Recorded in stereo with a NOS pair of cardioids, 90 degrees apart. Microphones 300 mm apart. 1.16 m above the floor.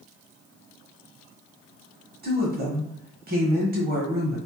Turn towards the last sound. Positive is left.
turn(degrees=-35)